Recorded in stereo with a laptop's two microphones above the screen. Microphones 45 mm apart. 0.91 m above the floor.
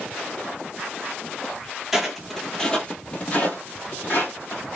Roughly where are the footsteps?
Centre.